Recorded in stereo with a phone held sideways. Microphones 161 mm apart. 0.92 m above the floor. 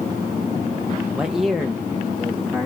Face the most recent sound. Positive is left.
turn(degrees=10)  # may be behind; listen again after turning